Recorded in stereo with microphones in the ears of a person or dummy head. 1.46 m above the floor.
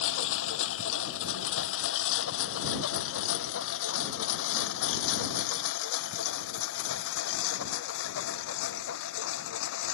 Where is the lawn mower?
80° left; by 9.9 s 85° left.